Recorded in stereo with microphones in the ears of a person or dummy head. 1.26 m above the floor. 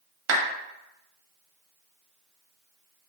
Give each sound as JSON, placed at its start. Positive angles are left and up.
{"t": 0.3, "sound": "a clap", "side_deg": -70, "distance_m": 0.7}